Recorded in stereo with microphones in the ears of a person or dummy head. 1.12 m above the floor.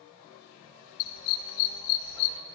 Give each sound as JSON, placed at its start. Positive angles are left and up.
{"t": 1.0, "sound": "a dog barking", "side_deg": 50, "distance_m": 1.9}